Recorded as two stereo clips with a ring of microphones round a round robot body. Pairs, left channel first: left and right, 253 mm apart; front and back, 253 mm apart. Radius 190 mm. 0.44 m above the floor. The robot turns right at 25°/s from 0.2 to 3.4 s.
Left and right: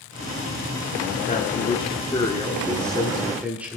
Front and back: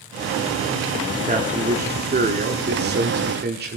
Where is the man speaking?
135° left, 1.4 m; by 3.8 s 170° right, 1.4 m.